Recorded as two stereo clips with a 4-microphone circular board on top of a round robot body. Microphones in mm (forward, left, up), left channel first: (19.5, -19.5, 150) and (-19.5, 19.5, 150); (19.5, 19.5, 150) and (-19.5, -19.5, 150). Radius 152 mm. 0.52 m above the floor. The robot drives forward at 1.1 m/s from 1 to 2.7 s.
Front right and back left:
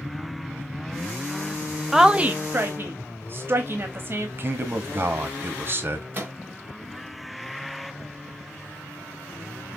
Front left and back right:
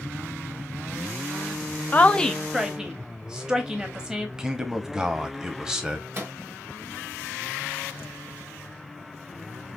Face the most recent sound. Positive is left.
turn(degrees=-175)